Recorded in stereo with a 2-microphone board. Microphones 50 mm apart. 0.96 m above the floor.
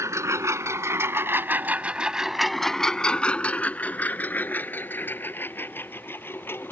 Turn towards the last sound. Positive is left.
turn(degrees=50)  # may be behind; listen again after turning